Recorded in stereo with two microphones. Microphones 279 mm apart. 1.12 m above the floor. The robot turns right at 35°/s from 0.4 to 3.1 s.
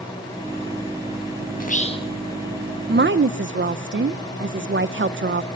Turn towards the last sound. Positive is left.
turn(degrees=-45)  # may be behind; listen again after turning